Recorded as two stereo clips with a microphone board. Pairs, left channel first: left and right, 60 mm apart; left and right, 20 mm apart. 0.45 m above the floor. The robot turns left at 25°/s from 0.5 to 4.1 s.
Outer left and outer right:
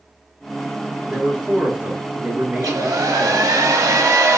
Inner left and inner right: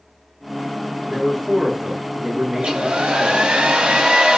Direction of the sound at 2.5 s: 75° right.